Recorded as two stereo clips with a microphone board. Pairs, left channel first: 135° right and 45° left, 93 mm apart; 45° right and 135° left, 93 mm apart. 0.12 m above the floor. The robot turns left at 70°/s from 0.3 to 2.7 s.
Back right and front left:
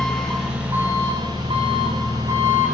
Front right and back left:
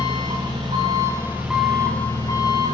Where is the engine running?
140° left, 8 m; by 2.7 s 25° right, 8 m.